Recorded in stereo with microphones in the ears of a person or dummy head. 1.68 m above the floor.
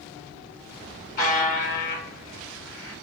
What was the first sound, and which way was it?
A buzzer, 45° left (ahead or behind).